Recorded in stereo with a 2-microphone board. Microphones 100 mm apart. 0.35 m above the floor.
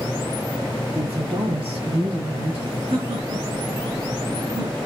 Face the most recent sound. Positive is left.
turn(degrees=-80)